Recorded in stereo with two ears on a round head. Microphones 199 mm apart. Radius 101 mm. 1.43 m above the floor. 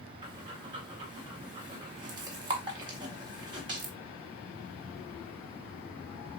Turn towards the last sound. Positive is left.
turn(degrees=-20)  # may be behind; listen again after turning